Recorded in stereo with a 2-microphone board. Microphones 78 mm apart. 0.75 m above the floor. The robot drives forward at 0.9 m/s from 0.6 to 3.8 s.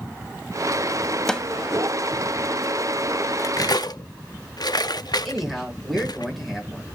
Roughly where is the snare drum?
Centre.